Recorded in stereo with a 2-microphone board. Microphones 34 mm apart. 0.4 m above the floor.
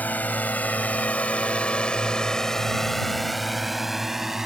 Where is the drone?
60° left (ahead or behind); by 4.5 s 15° right (ahead or behind).